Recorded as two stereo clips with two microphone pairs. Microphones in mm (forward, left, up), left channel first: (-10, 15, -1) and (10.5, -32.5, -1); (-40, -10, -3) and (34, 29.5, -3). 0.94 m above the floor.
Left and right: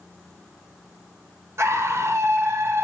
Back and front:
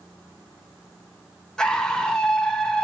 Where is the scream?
75° right, 0.7 m.